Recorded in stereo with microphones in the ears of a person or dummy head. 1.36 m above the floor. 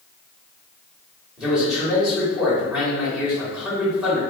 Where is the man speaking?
Centre (ahead or behind), 1.3 m.